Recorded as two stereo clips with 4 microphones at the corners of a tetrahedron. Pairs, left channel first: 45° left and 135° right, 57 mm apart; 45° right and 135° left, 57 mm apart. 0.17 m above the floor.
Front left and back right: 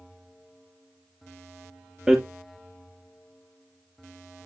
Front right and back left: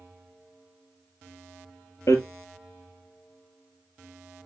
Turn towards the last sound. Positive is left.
turn(degrees=-60)